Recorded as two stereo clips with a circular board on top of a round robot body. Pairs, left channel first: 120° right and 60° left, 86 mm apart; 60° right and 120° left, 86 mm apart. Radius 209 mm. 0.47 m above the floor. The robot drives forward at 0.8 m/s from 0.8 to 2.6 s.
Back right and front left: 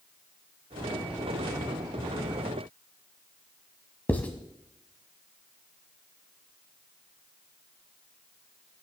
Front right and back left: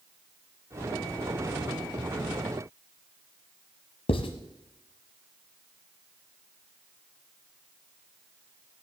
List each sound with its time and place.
4.1 s writing: 45° right, 1.0 m